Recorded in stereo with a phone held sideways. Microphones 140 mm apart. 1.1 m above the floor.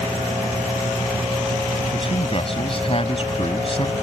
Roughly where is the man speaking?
Left.